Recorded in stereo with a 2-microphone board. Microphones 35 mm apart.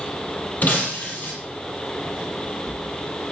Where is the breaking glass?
55° left (ahead or behind), 3 m.